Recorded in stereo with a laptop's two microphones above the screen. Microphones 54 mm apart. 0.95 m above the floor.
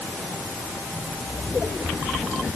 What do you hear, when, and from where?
Only background noise.